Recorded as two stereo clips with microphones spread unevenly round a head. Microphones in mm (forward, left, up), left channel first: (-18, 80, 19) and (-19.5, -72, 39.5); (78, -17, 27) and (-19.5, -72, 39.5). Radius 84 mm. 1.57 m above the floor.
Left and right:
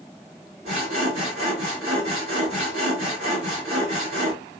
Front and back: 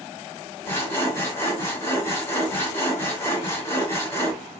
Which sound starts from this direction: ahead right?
Sawing, at 0.7 s.